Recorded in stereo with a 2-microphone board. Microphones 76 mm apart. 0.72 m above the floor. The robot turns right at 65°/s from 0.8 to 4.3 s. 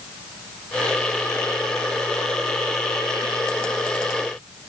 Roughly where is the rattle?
I don't hear a rattle.